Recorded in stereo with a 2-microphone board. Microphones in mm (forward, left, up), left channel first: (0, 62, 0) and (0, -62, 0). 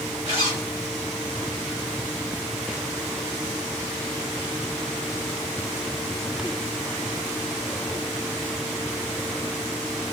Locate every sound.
0.2 s a zipper: 45° left (ahead or behind), 1.8 m